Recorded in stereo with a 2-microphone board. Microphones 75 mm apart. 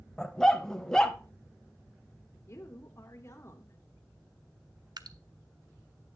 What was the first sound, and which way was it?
A dog barking, 10° left (ahead or behind).